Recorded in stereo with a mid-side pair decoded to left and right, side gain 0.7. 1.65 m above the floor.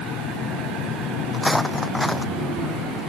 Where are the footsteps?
5° left.